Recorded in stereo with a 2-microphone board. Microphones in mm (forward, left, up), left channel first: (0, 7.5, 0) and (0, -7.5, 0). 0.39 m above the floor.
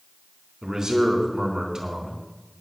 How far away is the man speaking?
About 4 m.